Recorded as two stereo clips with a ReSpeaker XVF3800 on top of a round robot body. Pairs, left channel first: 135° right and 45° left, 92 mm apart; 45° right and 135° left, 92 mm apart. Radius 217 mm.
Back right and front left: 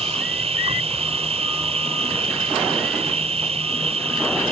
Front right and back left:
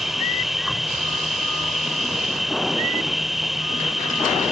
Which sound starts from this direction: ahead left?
An insect, at 0.0 s.